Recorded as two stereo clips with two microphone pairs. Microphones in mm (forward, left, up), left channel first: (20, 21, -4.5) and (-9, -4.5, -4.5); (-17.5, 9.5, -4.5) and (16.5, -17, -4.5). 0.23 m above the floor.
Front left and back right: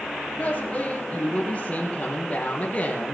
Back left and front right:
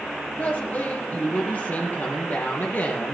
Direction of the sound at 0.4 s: 95° left.